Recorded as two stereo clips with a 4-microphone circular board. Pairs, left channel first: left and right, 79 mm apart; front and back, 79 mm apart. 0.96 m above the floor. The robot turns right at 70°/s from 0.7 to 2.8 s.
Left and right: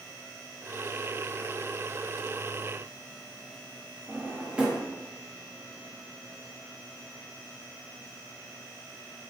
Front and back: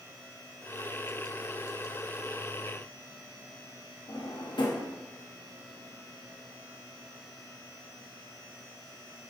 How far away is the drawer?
About 0.7 m.